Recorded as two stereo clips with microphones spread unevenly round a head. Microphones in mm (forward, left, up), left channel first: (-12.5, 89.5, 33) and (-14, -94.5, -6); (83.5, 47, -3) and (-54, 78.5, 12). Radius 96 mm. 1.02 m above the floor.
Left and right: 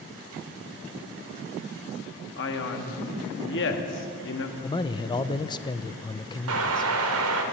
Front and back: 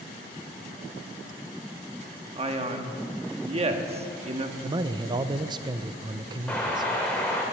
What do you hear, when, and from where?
2.4 s a man speaking: 120° left, 1.7 m
4.6 s a man speaking: 155° left, 0.5 m
6.5 s an explosion: 100° right, 1.8 m